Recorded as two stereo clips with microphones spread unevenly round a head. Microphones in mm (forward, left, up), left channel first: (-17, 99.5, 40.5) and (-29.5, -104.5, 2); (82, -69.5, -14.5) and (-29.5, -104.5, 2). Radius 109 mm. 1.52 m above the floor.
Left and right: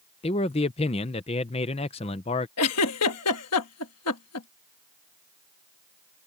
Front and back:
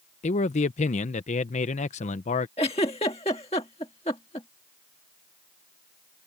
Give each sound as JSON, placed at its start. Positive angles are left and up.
{"t": 0.2, "sound": "a man speaking", "azimuth_deg": 35}
{"t": 2.6, "sound": "a giggle", "azimuth_deg": 80}